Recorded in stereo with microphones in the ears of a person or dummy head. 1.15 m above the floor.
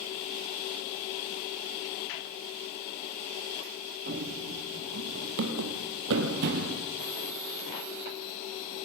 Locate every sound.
4.1 s running footsteps: 50° right (ahead or behind), 2.5 m; by 6.8 s 40° right (ahead or behind), 2 m